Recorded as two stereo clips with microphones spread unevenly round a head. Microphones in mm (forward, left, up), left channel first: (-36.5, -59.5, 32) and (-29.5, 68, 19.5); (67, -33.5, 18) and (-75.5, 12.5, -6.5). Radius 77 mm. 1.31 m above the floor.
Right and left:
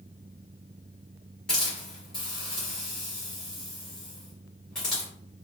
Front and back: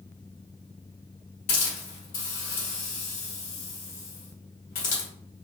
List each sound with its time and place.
1.5 s a hiss: 10° right, 1.6 m